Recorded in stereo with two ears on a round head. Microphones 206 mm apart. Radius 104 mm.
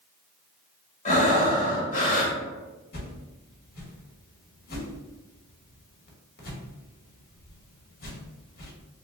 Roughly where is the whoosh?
Left.